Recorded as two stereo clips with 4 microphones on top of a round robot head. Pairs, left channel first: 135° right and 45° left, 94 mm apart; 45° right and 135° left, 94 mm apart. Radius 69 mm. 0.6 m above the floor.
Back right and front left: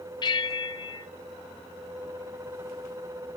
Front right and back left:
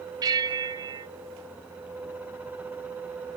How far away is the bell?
About 0.8 m.